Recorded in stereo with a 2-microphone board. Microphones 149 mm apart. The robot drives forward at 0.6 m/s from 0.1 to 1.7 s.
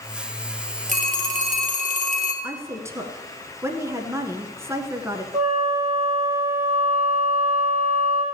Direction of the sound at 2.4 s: 20° right (ahead or behind).